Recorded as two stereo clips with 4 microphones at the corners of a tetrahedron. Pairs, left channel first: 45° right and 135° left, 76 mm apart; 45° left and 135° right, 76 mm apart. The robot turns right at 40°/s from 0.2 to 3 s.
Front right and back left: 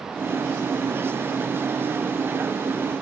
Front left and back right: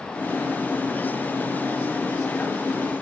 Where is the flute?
No flute in this recording.